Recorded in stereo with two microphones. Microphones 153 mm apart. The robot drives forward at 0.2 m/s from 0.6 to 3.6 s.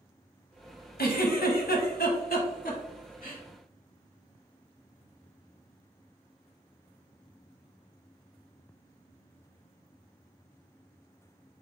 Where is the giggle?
75° left (ahead or behind), 0.9 m; by 3.4 s 55° left (ahead or behind), 1.1 m.